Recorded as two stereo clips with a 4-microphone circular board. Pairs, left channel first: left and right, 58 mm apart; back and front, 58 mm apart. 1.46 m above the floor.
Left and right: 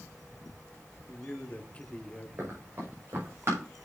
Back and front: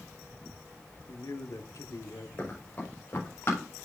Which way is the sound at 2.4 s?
130° right.